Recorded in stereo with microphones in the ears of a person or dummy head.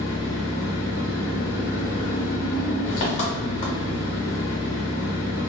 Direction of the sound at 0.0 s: 40° left (ahead or behind).